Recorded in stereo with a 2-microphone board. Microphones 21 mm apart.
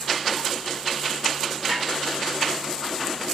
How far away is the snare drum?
About 1.8 m.